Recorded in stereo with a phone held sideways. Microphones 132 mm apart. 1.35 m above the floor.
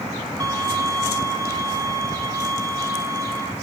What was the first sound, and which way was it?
A violin, 30° right (ahead or behind).